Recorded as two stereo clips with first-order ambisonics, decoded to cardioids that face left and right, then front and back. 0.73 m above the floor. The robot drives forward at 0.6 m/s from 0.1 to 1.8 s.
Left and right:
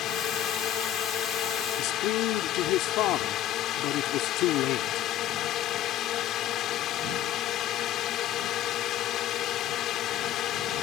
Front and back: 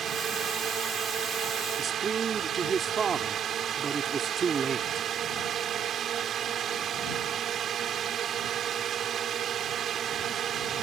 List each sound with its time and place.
0.0 s a drone: 125° left; by 10.8 s 130° left
1.8 s a man speaking: 115° left